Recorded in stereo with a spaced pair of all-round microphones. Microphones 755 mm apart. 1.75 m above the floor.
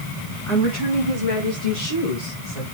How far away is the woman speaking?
About 3 m.